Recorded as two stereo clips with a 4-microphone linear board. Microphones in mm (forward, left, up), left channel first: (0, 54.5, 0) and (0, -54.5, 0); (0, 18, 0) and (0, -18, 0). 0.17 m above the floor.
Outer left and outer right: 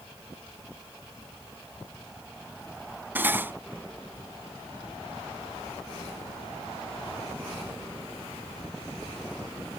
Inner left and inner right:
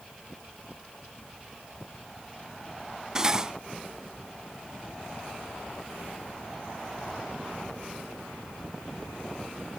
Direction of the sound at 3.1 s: 20° right (ahead or behind).